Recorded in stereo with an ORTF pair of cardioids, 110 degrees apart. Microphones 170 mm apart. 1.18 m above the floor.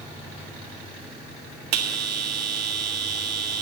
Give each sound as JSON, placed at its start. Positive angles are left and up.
{"t": 1.7, "sound": "a bell", "azimuth_deg": -65, "distance_m": 1.8}